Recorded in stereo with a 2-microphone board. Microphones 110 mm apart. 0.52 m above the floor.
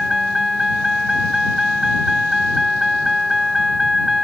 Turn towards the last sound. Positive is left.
turn(degrees=0)  # may be behind; listen again after turning